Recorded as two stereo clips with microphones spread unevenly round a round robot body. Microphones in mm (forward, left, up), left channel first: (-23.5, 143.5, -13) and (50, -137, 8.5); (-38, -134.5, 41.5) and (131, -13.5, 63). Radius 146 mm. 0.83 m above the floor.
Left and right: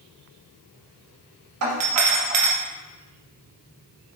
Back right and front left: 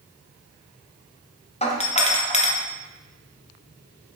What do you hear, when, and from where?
1.6 s a doorbell: 100° right, 1.9 m